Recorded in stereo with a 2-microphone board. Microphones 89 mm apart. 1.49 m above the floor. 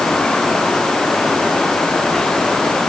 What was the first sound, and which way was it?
Only background noise.